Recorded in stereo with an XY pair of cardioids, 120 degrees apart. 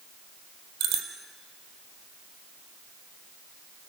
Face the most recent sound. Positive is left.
turn(degrees=-70)